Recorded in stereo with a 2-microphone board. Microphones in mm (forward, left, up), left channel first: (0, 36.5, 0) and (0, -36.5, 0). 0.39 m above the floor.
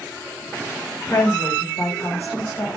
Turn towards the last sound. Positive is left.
turn(degrees=35)  # may be behind; listen again after turning